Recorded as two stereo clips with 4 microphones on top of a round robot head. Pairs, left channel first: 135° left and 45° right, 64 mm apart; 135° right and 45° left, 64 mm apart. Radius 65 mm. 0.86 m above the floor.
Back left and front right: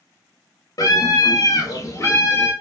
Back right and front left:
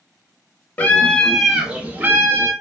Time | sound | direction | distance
0.8 | a scream | 160° left | 0.8 m